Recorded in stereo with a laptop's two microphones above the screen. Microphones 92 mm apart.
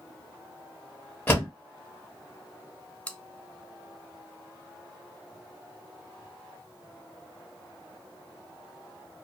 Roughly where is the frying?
No frying in this recording.